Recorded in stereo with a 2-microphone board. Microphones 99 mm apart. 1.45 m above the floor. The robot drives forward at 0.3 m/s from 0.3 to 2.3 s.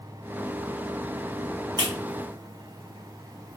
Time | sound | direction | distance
1.8 | a clap | 45° right (ahead or behind) | 1.4 m